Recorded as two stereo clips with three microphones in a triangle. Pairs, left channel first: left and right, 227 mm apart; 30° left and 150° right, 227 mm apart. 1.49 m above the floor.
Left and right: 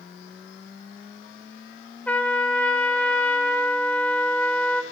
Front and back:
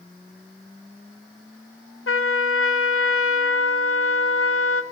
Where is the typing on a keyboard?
I don't hear typing on a keyboard.